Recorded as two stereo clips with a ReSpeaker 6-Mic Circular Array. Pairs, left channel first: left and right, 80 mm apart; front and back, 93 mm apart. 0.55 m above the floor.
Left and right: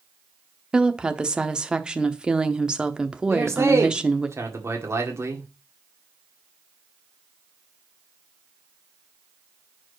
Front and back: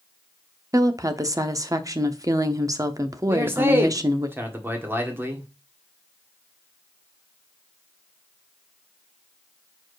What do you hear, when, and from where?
0.7 s a woman speaking: 160° right, 0.7 m
3.3 s a man speaking: 125° right, 1.6 m